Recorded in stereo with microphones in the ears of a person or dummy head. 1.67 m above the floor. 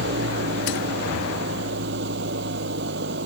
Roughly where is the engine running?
Right.